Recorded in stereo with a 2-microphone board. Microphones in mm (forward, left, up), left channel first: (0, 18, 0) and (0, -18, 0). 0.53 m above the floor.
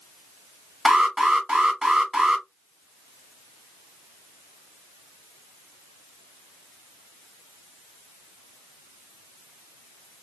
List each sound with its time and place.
0.8 s an alarm: 20° right (ahead or behind), 1.4 m